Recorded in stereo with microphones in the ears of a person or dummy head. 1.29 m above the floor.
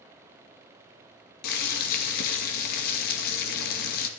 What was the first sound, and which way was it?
Boiling, 50° left (ahead or behind).